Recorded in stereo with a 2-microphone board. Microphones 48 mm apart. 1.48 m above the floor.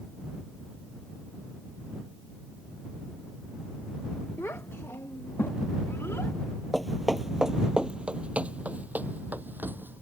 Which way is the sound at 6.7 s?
5° left (ahead or behind).